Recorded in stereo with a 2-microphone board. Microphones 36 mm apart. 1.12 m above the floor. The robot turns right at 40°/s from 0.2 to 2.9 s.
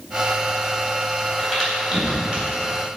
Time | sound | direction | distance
1.4 | a crack | 5° left (ahead or behind) | 3.5 m